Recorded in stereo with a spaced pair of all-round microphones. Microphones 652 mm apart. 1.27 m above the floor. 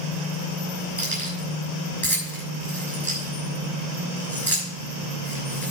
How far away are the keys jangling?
About 6 m.